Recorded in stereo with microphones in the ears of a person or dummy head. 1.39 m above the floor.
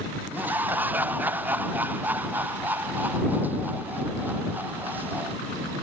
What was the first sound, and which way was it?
Laughter, 5° right (ahead or behind).